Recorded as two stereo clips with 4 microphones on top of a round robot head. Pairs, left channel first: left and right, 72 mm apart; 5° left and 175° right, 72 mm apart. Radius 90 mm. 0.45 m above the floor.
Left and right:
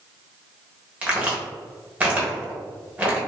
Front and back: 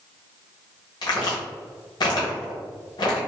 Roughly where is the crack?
Ahead.